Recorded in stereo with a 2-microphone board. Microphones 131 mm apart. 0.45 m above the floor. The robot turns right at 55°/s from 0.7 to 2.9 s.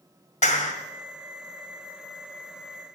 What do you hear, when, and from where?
0.4 s a clap: 70° left (ahead or behind), 2 m